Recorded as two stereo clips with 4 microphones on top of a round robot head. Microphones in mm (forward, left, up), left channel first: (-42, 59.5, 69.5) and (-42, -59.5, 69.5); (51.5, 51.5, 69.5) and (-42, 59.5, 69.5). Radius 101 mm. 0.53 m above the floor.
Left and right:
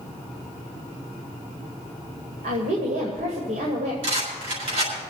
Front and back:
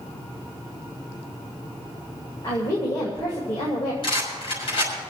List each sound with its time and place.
2.4 s a woman speaking: 65° right, 2 m
4.0 s a rattle: 50° right, 6 m